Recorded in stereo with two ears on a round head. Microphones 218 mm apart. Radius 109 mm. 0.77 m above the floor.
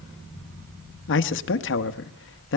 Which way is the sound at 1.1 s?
55° left (ahead or behind).